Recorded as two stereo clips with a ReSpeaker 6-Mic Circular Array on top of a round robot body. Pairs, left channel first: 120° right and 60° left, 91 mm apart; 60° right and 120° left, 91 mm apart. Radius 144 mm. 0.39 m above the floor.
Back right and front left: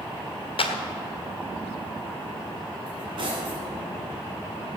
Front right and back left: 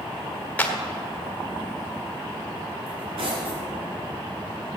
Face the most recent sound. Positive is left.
turn(degrees=95)